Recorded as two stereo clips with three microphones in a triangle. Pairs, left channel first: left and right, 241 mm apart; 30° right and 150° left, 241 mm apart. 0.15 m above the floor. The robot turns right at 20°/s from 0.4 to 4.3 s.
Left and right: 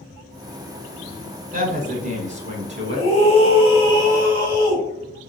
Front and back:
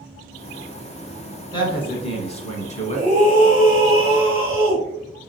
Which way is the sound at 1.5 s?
85° right.